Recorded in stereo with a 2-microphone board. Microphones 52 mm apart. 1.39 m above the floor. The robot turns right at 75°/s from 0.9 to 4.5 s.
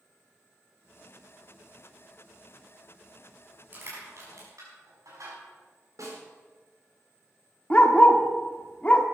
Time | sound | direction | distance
3.7 | crushing | 35° right (ahead or behind) | 6 m
6.0 | a snare drum | 85° right | 4.5 m
7.7 | a dog barking | 25° left (ahead or behind) | 1.3 m